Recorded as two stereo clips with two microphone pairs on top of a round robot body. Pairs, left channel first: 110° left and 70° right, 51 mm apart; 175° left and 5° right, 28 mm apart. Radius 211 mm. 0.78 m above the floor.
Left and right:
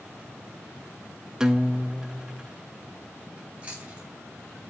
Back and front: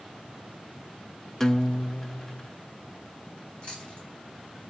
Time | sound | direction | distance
1.4 | a guitar | 130° right | 0.8 m
3.4 | chewing | 130° right | 3.5 m